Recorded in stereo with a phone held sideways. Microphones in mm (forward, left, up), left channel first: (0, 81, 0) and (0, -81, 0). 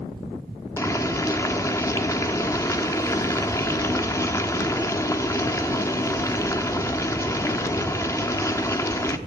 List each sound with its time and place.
0.8 s boiling: 20° left (ahead or behind), 1.1 m